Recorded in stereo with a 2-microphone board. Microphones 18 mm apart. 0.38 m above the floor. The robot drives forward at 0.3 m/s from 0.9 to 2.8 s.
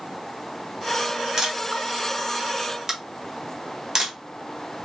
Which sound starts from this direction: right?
A camera shutter, at 1.4 s.